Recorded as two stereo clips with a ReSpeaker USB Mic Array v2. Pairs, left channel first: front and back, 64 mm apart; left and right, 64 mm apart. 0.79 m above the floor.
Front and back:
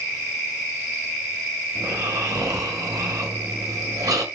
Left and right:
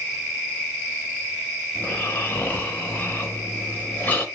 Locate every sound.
1.8 s snoring: 150° left, 0.7 m